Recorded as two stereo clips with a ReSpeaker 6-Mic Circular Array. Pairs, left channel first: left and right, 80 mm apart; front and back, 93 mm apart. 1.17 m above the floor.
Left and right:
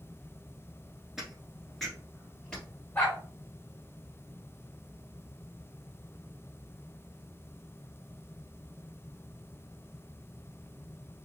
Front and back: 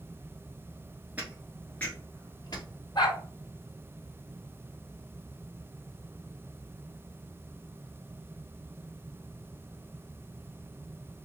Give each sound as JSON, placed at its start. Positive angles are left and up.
{"t": 1.2, "sound": "footsteps", "azimuth_deg": -160, "distance_m": 1.1}
{"t": 3.0, "sound": "a dog barking", "azimuth_deg": 30, "distance_m": 1.5}